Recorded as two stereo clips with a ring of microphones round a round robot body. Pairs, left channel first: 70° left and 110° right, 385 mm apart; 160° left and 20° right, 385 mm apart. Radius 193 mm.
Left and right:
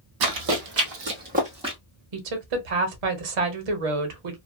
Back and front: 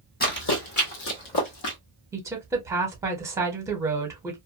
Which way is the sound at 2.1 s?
105° right.